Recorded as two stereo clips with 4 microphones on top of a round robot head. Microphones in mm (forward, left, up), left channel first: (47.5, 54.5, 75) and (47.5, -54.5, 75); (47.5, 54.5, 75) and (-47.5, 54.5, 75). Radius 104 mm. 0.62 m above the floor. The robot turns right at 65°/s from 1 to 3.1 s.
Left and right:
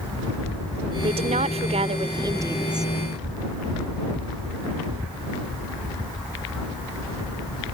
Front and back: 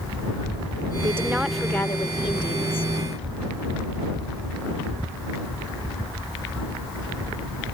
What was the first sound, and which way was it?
A woman speaking, 120° right.